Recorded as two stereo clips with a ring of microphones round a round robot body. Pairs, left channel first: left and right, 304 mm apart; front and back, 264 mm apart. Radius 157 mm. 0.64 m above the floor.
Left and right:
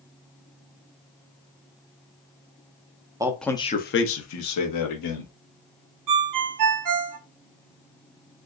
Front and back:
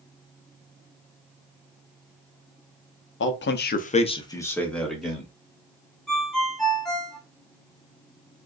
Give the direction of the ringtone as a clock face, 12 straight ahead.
3 o'clock.